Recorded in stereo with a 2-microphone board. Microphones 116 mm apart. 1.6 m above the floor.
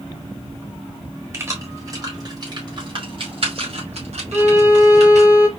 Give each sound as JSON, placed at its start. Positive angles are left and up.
{"t": 1.3, "sound": "keys jangling", "side_deg": -25, "distance_m": 3.0}
{"t": 4.3, "sound": "a violin", "side_deg": -20, "distance_m": 1.2}